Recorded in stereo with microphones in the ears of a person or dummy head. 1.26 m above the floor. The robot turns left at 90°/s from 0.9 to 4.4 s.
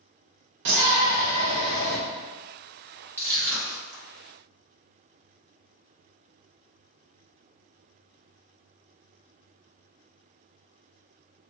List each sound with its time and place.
0.7 s a shout: 110° right, 0.6 m; by 2.0 s 155° left, 0.6 m
3.2 s crushing: 10° right (ahead or behind), 1.3 m; by 4.0 s 75° right (ahead or behind), 1.3 m